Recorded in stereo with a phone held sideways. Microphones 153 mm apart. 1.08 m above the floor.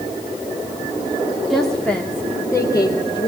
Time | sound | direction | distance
1.5 | a woman speaking | centre (ahead or behind) | 2.5 m